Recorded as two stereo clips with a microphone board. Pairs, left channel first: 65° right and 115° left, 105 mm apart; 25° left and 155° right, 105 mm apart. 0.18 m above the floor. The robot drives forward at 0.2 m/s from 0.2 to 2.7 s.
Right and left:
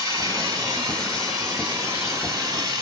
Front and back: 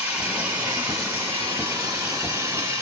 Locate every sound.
0.0 s running water: 135° left, 1.6 m; by 2.8 s 150° left, 1.9 m